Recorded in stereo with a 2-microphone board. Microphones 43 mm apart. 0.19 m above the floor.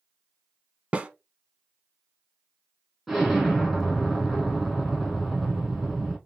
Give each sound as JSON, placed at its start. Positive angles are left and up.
{"t": 0.9, "sound": "a snare drum", "side_deg": -25, "distance_m": 0.7}
{"t": 3.1, "sound": "an explosion", "side_deg": 0, "distance_m": 2.5}